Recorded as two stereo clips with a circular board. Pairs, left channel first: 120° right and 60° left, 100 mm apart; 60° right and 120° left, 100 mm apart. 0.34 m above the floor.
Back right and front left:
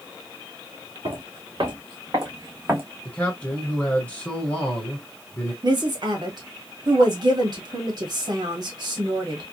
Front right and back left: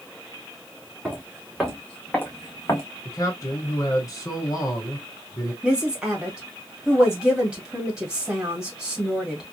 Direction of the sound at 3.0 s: 55° right.